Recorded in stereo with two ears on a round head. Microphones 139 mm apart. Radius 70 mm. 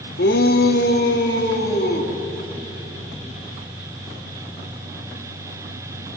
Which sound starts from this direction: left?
A shout, at 0.2 s.